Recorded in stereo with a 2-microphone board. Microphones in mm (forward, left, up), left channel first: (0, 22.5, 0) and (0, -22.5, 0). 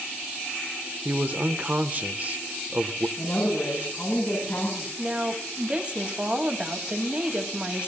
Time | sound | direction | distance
1.1 | a man speaking | 35° right (ahead or behind) | 0.9 m
3.2 | a woman speaking | 45° left (ahead or behind) | 8 m
5.0 | a woman speaking | 25° right (ahead or behind) | 2 m